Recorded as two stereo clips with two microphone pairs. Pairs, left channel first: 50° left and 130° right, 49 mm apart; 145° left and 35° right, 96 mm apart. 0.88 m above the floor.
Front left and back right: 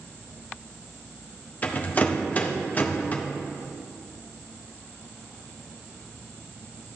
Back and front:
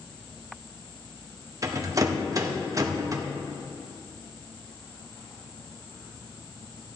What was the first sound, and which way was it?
A rattle, 5° left.